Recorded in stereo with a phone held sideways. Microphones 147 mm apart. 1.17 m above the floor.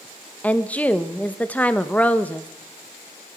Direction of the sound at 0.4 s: 10° left (ahead or behind).